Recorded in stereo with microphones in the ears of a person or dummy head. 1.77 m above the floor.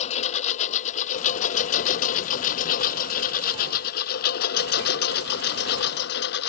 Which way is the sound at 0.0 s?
40° left (ahead or behind).